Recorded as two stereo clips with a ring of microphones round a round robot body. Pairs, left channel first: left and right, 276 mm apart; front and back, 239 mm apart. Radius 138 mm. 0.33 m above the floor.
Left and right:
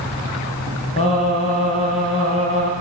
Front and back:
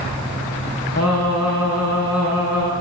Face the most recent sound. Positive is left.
turn(degrees=20)